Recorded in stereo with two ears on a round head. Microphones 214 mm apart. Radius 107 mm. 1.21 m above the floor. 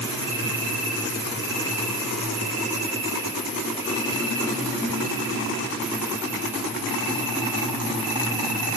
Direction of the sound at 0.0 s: 10° right (ahead or behind).